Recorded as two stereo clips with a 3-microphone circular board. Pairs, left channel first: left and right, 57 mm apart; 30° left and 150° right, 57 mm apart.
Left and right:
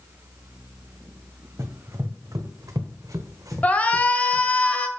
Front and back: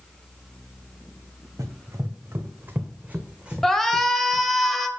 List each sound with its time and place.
1.6 s running footsteps: 125° right, 1.3 m; by 4.5 s 60° right, 1.6 m
3.6 s a shout: 110° left, 1.0 m